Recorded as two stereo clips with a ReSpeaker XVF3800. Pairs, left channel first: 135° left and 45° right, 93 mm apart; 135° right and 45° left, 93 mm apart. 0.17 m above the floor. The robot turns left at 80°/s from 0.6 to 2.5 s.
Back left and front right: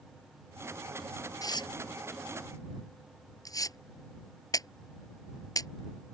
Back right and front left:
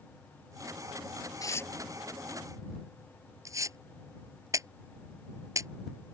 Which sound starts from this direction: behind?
Tearing paper, at 1.4 s.